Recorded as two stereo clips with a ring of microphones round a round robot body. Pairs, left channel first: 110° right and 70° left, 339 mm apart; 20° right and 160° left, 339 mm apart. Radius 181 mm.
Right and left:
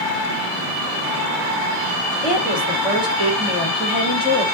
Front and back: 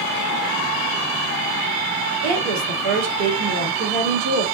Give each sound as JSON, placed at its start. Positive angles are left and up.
{"t": 2.2, "sound": "a woman speaking", "azimuth_deg": 155, "distance_m": 1.9}